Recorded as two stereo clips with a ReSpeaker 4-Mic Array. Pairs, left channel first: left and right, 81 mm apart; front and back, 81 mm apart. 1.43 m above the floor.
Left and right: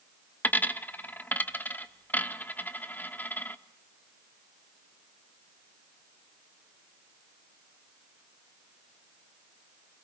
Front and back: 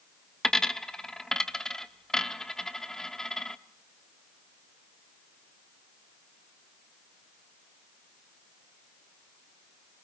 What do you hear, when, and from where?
0.4 s a dropped coin: 75° left, 1.0 m